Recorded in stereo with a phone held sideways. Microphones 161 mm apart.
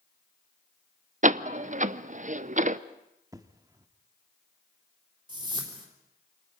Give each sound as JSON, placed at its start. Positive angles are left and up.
{"t": 1.2, "sound": "a door slam", "side_deg": -50, "distance_m": 0.5}
{"t": 3.3, "sound": "an explosion", "side_deg": -20, "distance_m": 1.0}
{"t": 5.3, "sound": "a whoosh", "side_deg": -30, "distance_m": 3.5}